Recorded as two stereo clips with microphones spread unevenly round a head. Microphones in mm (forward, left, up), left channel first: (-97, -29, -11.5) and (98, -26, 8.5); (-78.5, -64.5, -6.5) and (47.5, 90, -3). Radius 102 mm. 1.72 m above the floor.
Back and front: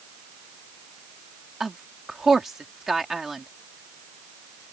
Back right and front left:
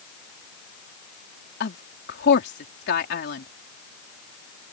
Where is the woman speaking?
85° right.